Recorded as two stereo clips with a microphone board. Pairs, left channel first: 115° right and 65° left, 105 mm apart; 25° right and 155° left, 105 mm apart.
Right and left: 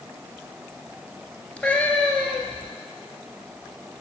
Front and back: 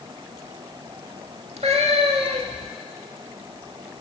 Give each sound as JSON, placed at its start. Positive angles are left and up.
{"t": 1.6, "sound": "a cat meowing", "azimuth_deg": 170, "distance_m": 1.3}